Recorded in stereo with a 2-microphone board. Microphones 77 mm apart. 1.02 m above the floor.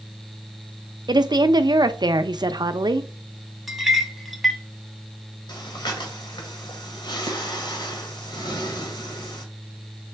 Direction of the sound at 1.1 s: 60° right (ahead or behind).